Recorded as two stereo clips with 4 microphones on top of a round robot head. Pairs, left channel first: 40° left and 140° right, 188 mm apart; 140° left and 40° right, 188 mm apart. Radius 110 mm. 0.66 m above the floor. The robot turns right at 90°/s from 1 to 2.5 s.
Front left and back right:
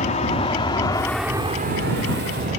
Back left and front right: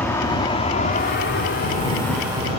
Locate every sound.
0.0 s an aircraft: 65° left; by 2.6 s 95° right